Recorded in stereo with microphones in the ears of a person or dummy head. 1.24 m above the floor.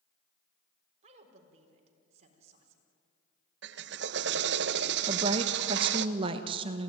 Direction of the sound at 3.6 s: 60° right (ahead or behind).